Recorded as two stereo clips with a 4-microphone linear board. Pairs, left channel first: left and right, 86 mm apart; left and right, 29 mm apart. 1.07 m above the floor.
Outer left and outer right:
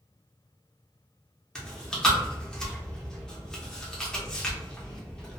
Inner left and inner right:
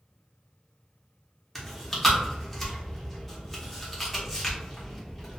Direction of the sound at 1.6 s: 10° left (ahead or behind).